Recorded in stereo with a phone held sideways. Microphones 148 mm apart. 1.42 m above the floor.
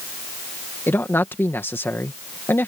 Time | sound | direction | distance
0.9 | a man speaking | 15° left (ahead or behind) | ?